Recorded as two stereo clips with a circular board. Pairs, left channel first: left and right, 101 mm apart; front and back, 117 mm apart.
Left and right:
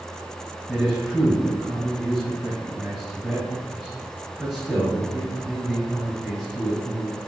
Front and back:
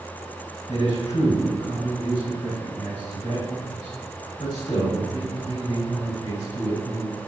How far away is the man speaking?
About 2.0 m.